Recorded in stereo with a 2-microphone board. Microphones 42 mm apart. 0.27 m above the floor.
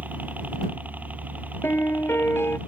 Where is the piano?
85° left.